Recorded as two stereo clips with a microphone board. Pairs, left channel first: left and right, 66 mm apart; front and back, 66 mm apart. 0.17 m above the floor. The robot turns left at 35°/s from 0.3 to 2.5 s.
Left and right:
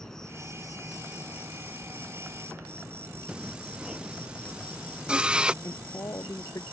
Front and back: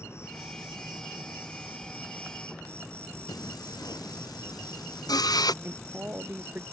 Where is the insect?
10° left; by 6.8 s 65° right.